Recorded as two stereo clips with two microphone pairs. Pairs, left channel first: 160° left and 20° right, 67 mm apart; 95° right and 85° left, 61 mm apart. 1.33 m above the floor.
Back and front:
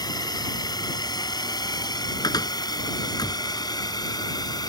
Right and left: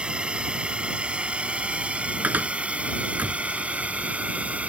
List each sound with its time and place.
0.0 s a drone: 160° left; by 4.7 s 155° left
2.2 s a cupboard door: 150° left